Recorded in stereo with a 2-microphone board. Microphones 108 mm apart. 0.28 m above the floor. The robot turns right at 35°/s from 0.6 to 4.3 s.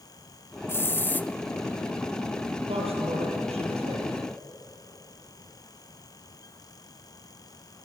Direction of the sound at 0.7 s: 25° left (ahead or behind).